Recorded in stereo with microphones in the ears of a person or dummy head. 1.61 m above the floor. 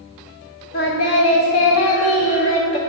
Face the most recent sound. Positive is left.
turn(degrees=30)  # may be behind; listen again after turning